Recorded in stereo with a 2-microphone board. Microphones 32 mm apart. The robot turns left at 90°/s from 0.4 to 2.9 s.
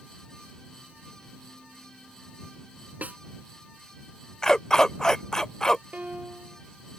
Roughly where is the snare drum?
Right.